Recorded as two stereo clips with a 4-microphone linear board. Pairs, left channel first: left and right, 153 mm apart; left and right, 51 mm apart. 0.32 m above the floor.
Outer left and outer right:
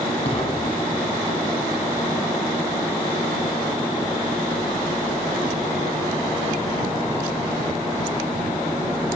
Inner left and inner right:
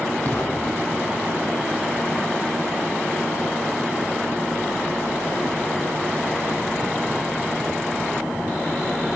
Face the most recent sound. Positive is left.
turn(degrees=40)  # may be behind; listen again after turning